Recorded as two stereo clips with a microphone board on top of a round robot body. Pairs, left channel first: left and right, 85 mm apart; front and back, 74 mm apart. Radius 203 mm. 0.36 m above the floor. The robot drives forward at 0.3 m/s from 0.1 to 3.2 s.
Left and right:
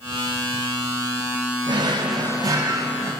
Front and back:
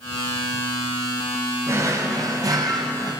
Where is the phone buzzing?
No phone buzzing in this recording.